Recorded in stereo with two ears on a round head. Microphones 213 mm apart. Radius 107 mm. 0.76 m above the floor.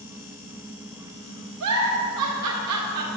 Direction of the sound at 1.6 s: 75° right (ahead or behind).